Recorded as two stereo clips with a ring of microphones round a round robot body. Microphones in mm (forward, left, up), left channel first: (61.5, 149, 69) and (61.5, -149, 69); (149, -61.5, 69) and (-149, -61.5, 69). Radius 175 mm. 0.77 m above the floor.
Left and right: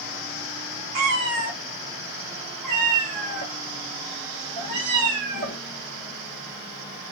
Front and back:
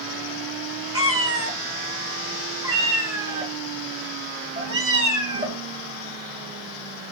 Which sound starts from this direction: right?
A cat meowing, at 0.9 s.